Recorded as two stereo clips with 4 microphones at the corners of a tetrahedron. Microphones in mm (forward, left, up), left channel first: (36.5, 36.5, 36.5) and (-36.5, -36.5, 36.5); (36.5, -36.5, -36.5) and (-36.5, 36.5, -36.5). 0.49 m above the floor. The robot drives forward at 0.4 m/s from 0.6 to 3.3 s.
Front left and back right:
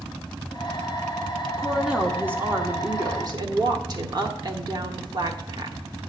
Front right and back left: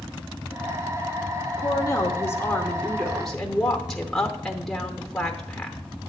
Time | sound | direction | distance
1.6 | a woman speaking | 50° right | 0.9 m